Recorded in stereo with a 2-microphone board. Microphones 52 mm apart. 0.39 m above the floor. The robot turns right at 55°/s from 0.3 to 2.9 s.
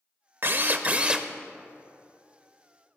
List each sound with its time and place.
0.4 s a drill: 65° right, 0.7 m; by 1.3 s 15° right, 0.7 m